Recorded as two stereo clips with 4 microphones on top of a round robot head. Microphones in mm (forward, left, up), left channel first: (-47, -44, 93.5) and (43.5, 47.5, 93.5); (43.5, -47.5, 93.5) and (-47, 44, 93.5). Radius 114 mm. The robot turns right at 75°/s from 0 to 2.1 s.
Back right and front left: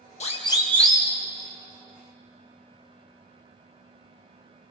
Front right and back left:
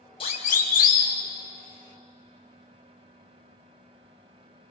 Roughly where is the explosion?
I don't hear an explosion.